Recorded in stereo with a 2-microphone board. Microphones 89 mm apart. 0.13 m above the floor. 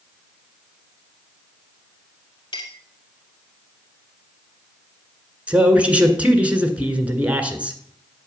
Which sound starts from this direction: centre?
A man speaking, at 5.5 s.